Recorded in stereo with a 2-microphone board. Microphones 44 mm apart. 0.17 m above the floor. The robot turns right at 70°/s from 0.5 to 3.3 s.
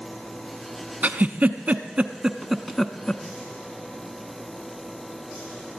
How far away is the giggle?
About 0.6 m.